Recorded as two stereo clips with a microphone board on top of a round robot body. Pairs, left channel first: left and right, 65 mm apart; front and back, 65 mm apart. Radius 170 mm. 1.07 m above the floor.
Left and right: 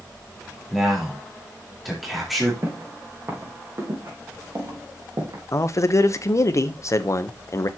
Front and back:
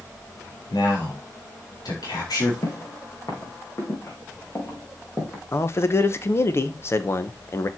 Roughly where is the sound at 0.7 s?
Ahead.